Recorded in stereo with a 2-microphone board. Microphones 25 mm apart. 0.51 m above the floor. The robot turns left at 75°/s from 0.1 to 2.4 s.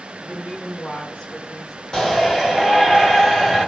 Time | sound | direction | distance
0.2 | a woman speaking | 135° left | 1.7 m
1.9 | a shout | 10° left | 2.0 m